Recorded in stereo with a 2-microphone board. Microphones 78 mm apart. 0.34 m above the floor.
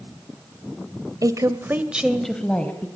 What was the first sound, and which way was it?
A woman speaking, 50° right (ahead or behind).